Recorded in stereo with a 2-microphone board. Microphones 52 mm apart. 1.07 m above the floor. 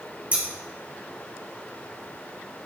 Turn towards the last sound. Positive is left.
turn(degrees=-30)  # may be behind; listen again after turning